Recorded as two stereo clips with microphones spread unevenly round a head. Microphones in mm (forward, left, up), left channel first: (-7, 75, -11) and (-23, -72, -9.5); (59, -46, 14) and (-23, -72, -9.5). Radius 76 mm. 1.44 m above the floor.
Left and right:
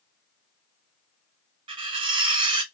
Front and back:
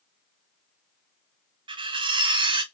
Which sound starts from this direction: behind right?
Cutlery clinking, at 1.7 s.